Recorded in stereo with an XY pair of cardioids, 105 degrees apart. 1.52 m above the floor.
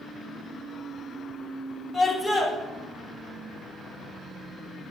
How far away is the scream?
About 2 m.